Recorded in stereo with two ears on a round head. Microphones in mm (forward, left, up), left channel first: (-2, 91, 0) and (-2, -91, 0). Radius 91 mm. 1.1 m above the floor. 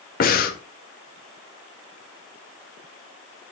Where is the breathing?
45° left (ahead or behind), 1.9 m.